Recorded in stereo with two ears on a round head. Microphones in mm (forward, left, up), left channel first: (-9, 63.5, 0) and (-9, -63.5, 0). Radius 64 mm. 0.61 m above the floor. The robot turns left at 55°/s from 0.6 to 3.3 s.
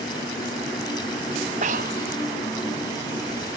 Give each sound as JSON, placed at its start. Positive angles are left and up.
{"t": 1.6, "sound": "breathing", "side_deg": -50}